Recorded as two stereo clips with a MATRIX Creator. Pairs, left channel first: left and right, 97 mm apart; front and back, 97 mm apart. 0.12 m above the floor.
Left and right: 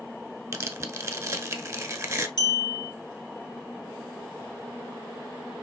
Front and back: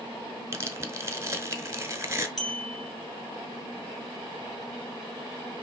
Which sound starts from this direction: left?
A clink, at 2.4 s.